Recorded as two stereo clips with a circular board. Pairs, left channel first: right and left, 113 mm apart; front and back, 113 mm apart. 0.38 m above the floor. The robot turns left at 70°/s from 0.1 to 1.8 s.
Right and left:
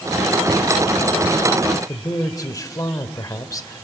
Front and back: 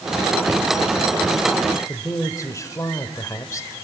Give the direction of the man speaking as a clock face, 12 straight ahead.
2 o'clock.